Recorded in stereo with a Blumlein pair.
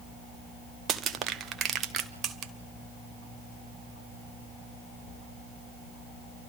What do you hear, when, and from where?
0.9 s crushing: 30° right, 1.2 m